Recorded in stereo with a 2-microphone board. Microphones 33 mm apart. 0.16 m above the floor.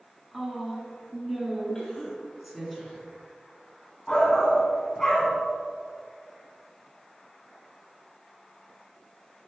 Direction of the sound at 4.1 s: 15° left (ahead or behind).